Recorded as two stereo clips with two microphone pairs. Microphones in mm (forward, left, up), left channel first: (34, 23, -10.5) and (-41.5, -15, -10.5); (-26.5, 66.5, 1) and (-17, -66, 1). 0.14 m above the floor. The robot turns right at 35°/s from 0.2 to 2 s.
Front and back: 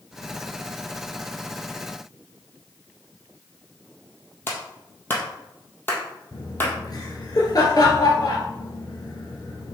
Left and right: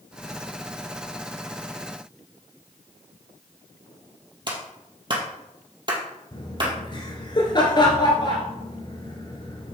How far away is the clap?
About 2.5 m.